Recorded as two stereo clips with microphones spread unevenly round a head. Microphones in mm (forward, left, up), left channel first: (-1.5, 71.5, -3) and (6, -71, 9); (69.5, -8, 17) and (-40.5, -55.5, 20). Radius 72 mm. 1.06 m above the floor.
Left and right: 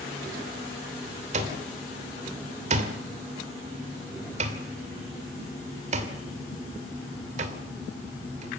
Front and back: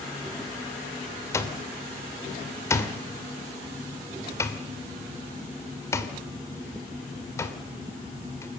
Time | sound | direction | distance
1.3 | an alarm clock | 45° right | 2.5 m